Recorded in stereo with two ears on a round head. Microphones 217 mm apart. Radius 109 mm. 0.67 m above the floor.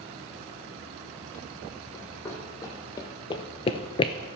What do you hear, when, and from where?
1.9 s running footsteps: 10° left (ahead or behind), 2.5 m; by 4.1 s 20° left (ahead or behind), 0.7 m